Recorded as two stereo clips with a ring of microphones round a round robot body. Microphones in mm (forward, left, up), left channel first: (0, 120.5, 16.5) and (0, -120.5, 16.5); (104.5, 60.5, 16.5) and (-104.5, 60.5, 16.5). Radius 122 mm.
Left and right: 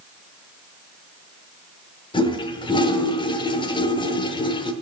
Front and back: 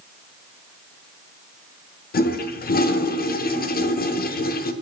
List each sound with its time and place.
2.1 s a toilet flushing: 25° left, 0.8 m